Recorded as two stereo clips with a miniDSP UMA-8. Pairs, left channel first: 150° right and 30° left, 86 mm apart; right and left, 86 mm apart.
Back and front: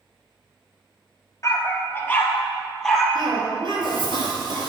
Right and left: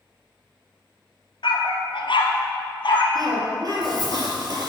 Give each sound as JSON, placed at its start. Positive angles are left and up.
{"t": 1.4, "sound": "a dog barking", "azimuth_deg": -95, "distance_m": 1.3}
{"t": 3.1, "sound": "a cough", "azimuth_deg": 50, "distance_m": 4.0}